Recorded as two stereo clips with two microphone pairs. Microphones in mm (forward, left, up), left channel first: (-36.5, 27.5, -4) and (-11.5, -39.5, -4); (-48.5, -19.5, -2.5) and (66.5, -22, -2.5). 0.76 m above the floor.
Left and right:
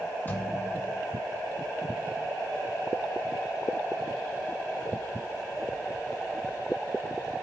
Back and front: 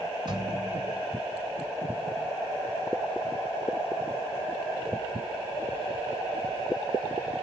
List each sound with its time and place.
0.3 s a thud: 50° left, 2 m